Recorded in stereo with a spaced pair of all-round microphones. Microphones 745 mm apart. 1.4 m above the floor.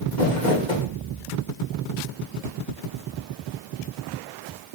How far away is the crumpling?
About 2.5 m.